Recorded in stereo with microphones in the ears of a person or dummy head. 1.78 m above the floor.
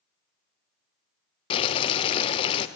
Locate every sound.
1.5 s boiling: 35° left (ahead or behind), 0.7 m